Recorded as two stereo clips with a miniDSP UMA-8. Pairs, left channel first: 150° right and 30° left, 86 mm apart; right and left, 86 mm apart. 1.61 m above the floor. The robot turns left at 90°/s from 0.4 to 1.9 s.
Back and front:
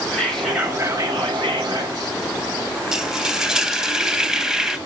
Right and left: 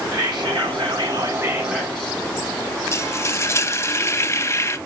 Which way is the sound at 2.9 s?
50° right.